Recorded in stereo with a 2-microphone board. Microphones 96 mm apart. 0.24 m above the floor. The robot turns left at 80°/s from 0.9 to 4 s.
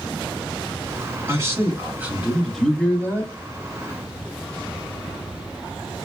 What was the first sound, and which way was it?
A man speaking, 30° right (ahead or behind).